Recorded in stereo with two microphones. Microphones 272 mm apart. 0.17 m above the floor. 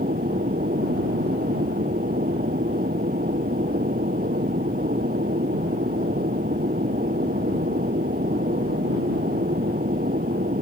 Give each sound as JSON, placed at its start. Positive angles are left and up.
{"t": 0.0, "sound": "an aircraft", "side_deg": -35}